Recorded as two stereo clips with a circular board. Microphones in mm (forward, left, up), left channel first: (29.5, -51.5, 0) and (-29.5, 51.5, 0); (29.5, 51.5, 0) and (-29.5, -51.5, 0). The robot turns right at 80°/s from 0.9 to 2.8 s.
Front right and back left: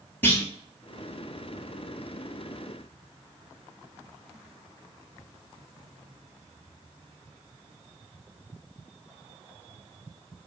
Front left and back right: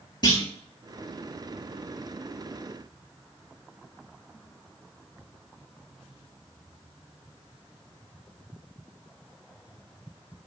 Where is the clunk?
10° left, 0.9 m.